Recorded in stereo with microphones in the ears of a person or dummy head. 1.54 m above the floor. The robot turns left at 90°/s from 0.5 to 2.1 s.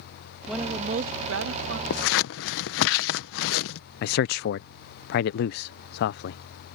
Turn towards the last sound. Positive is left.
turn(degrees=65)  # may be behind; listen again after turning